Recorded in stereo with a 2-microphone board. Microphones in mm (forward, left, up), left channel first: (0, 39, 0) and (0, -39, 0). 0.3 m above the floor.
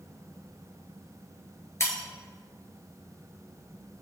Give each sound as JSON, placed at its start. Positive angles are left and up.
{"t": 1.8, "sound": "breaking glass", "side_deg": 35, "distance_m": 2.0}